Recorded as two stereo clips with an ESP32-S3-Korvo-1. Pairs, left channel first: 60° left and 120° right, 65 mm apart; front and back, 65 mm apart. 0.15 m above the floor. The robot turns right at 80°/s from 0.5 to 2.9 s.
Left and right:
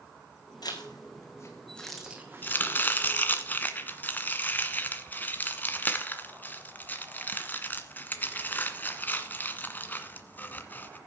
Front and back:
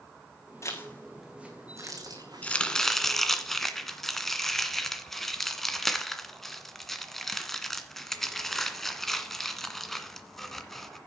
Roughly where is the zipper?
Ahead left.